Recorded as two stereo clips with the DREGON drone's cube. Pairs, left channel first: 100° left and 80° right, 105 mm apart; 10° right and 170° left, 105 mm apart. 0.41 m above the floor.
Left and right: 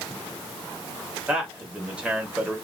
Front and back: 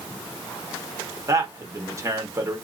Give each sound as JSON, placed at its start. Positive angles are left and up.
{"t": 1.3, "sound": "a man speaking", "azimuth_deg": -150, "distance_m": 1.1}